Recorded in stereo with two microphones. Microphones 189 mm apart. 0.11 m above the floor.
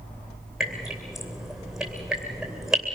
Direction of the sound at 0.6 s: Centre (ahead or behind).